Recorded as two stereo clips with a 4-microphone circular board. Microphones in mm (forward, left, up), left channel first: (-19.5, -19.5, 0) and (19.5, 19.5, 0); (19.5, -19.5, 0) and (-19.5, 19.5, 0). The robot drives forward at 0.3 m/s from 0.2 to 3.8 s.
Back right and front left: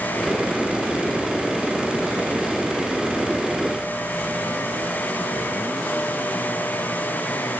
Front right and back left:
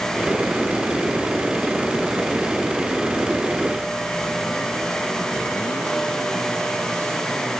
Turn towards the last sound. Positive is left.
No sound to turn to.